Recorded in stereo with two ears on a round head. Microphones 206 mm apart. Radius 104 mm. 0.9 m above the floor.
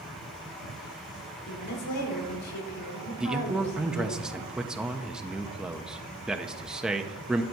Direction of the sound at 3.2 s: 5° right (ahead or behind).